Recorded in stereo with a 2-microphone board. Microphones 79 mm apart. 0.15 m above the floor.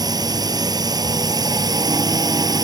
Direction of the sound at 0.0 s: 55° right (ahead or behind).